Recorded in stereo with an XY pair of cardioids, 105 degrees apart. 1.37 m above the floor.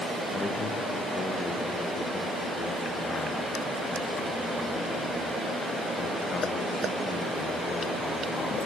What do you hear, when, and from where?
0.3 s a man speaking: 40° left, 0.9 m